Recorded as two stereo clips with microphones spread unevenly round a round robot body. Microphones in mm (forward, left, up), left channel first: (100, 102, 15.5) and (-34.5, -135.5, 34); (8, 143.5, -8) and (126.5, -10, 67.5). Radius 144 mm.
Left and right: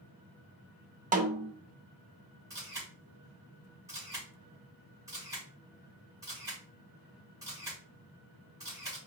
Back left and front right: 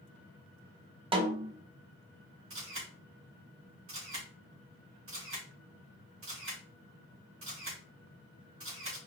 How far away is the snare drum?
About 0.7 m.